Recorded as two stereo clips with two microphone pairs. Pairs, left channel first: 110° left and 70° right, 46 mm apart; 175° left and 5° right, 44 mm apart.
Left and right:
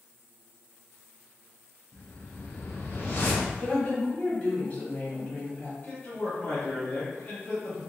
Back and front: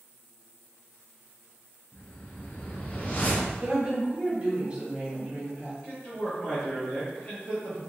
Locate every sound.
1.9 s a whoosh: 130° left, 0.8 m
3.6 s a woman speaking: 60° left, 1.8 m
5.8 s a man speaking: 125° left, 0.8 m